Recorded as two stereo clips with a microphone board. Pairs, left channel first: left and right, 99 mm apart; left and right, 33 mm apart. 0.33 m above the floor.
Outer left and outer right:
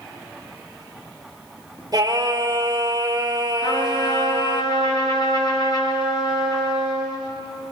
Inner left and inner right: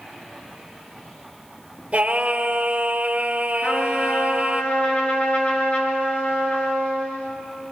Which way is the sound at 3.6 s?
55° left (ahead or behind).